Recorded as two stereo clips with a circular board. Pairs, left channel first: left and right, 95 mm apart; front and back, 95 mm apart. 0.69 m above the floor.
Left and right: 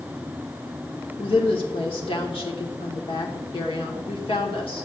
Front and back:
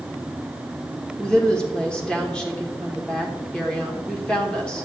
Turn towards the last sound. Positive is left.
turn(degrees=80)